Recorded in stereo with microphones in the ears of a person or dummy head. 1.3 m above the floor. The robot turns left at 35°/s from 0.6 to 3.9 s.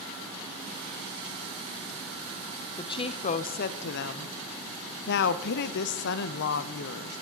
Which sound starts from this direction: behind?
A woman speaking, at 2.8 s.